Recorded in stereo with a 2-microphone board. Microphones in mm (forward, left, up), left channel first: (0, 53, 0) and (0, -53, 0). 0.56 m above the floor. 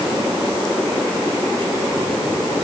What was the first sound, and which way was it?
Only background noise.